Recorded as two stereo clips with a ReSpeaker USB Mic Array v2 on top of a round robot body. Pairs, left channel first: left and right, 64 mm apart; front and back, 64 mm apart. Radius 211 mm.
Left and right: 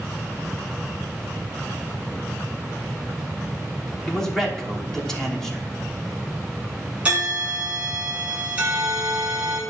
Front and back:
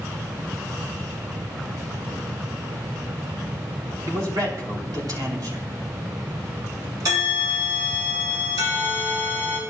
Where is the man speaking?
170° left, 3 m.